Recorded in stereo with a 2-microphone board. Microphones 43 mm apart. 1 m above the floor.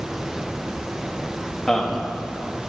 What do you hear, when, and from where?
1.7 s a man speaking: 5° left (ahead or behind), 1.5 m